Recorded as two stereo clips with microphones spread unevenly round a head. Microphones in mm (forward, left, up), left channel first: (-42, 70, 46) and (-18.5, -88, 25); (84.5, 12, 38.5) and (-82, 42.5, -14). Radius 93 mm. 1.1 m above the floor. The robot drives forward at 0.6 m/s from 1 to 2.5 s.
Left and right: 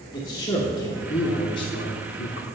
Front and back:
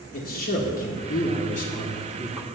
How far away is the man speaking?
About 1.2 m.